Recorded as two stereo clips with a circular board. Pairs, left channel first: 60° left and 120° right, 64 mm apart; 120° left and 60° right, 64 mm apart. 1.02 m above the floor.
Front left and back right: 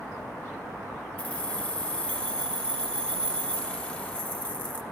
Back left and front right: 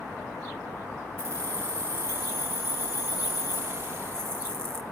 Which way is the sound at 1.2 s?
10° right.